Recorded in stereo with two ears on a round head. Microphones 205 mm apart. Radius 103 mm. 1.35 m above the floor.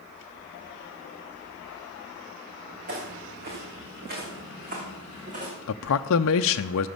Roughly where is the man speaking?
Left.